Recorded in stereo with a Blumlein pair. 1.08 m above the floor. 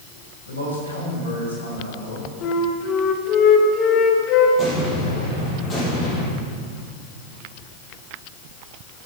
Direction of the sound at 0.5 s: 70° left.